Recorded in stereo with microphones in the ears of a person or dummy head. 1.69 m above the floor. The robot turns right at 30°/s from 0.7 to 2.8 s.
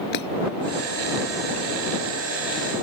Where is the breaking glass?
55° left (ahead or behind).